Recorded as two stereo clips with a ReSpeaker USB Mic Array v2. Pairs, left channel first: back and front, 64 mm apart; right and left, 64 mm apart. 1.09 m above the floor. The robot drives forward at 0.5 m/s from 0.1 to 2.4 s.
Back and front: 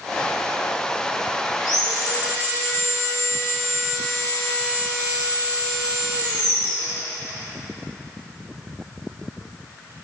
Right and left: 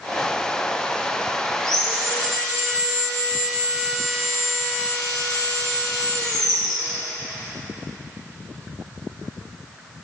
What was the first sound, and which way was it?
Sawing, 170° right.